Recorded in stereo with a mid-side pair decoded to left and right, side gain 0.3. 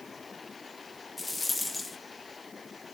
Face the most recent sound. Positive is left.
turn(degrees=45)